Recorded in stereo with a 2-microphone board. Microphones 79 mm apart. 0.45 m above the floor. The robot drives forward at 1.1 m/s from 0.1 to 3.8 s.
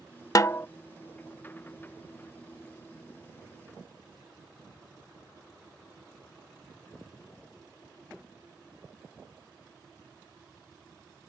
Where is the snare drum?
45° left (ahead or behind); by 0.7 s 30° left (ahead or behind).